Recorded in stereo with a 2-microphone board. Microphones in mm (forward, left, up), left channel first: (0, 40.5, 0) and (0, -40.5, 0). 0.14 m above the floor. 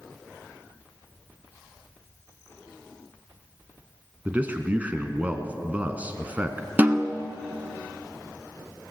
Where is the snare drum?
20° right (ahead or behind), 1.1 m.